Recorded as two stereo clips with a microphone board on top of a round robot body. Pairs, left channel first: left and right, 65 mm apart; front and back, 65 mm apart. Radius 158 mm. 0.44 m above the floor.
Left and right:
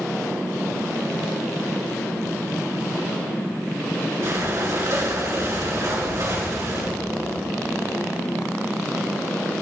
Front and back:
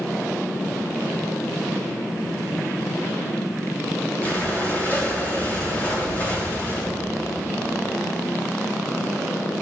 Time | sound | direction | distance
4.2 | breathing | 60° right | 3 m